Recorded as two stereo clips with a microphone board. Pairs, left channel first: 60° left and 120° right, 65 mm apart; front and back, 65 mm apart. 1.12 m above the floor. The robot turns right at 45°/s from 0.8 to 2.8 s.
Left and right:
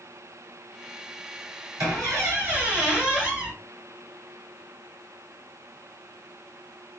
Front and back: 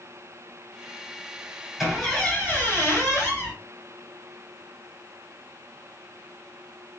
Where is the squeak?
95° right, 1.7 m; by 3.5 s 50° right, 1.7 m.